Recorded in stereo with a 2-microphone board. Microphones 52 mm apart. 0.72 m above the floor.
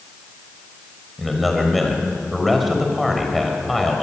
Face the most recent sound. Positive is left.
turn(degrees=5)  # may be behind; listen again after turning